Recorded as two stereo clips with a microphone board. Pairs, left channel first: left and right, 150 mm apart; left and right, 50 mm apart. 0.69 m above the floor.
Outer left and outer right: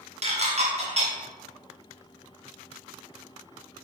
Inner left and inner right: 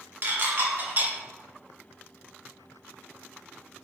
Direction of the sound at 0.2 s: 45° right (ahead or behind).